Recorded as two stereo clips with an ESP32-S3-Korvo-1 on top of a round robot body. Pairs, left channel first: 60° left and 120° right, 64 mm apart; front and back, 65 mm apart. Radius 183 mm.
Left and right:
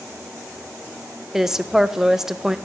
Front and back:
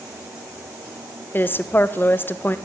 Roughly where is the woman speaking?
Ahead right.